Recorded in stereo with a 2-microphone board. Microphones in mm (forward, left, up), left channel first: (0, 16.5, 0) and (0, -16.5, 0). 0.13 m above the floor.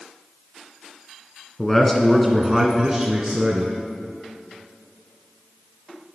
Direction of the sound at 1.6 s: 20° left (ahead or behind).